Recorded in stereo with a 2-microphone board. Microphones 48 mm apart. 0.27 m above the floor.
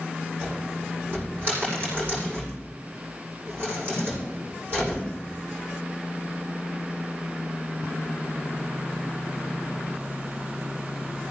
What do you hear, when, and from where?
0.4 s a cupboard door: 45° right (ahead or behind), 7.5 m